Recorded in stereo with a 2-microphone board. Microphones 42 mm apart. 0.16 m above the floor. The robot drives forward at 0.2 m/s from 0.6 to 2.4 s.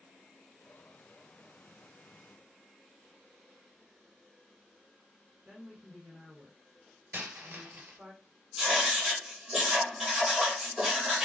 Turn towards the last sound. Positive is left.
turn(degrees=0)  # may be behind; listen again after turning